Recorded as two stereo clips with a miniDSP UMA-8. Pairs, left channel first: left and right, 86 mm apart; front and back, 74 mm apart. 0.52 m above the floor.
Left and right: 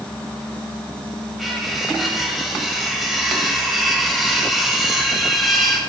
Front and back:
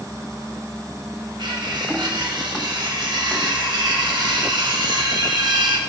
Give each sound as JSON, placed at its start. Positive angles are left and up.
{"t": 1.4, "sound": "cutlery clinking", "azimuth_deg": 180, "distance_m": 1.8}